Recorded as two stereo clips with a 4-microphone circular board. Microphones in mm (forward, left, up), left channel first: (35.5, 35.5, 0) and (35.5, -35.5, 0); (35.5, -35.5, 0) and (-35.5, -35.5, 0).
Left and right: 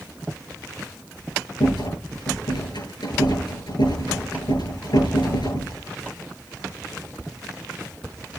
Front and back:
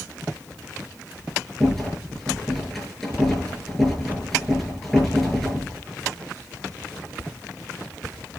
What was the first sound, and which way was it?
A rattle, 90° left.